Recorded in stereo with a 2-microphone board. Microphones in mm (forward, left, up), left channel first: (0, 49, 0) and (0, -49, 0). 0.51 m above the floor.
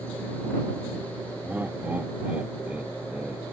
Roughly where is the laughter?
Centre.